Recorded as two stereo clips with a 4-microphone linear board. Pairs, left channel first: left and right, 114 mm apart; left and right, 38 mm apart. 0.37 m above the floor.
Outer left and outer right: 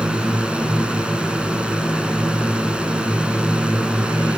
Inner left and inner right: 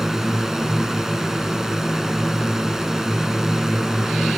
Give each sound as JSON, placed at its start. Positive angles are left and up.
{"t": 0.0, "sound": "a drone", "side_deg": -10}